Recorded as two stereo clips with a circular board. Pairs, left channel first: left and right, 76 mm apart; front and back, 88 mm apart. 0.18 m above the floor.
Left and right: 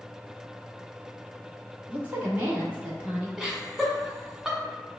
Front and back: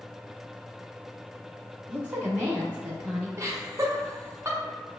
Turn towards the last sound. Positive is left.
turn(degrees=-170)